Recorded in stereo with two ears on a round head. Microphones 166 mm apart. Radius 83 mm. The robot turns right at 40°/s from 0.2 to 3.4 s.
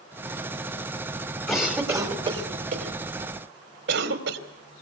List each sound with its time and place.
1.5 s a cough: centre (ahead or behind), 3 m; by 4.4 s 65° right (ahead or behind), 3 m